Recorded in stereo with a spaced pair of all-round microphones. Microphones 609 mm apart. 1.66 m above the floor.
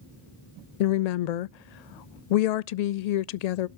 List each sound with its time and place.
0.8 s a woman speaking: 85° left, 0.5 m